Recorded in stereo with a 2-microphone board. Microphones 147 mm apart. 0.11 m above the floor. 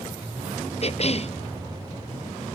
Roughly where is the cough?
Left.